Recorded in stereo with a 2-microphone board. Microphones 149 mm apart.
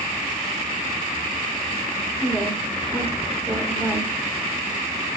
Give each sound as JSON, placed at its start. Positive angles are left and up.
{"t": 2.2, "sound": "a woman speaking", "side_deg": -10, "distance_m": 1.3}